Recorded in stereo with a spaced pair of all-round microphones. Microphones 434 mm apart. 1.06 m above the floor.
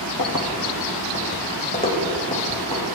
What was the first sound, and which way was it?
Keys jangling, 50° left (ahead or behind).